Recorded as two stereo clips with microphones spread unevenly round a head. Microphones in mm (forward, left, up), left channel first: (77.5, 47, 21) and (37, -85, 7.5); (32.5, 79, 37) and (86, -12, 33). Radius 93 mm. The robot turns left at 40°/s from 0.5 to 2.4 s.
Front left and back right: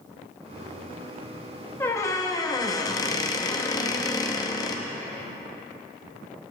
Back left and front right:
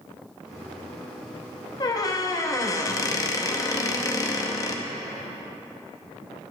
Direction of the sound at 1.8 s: 125° left.